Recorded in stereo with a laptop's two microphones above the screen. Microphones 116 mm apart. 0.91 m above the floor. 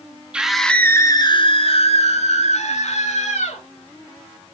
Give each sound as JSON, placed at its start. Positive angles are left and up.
{"t": 0.3, "sound": "a scream", "side_deg": -10, "distance_m": 1.2}